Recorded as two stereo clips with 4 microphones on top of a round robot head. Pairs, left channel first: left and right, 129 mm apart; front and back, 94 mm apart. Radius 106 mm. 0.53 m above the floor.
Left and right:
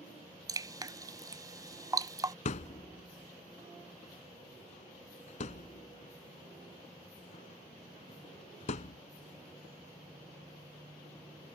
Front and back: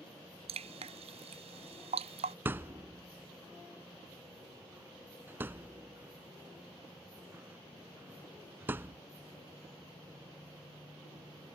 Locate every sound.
0.5 s dripping: 155° right
2.5 s a thud: 115° left